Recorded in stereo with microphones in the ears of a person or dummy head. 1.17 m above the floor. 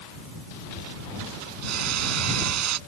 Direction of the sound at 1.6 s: 90° right.